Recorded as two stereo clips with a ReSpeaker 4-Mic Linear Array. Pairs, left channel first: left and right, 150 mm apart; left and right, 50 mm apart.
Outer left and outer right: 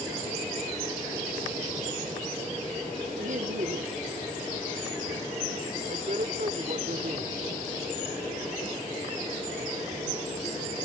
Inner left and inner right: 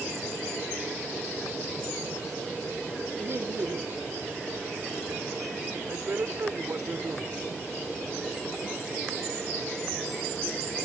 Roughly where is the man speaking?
Right.